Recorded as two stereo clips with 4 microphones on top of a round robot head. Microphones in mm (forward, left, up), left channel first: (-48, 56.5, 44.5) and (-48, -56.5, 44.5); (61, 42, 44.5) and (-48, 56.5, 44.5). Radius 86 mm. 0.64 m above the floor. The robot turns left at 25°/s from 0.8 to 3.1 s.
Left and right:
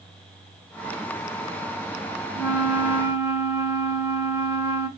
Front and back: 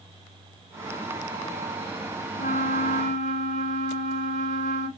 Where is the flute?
Straight ahead, 1.1 m; by 4.9 s 20° right, 1.1 m.